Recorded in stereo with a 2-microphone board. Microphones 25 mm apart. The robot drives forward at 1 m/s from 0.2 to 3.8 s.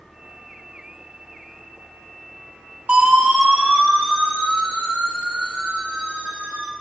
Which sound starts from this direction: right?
A siren, at 2.9 s.